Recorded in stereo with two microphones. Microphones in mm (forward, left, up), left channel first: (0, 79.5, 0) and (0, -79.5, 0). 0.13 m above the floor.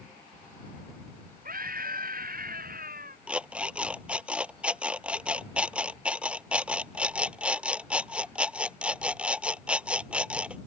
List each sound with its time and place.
1.4 s a scream: 65° right (ahead or behind); by 3.2 s 70° right (ahead or behind)
3.3 s an alarm clock: 5° right (ahead or behind)